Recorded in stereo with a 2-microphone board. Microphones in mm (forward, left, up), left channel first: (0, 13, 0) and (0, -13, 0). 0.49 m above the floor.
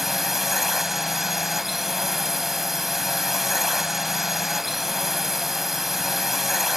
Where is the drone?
5° right (ahead or behind).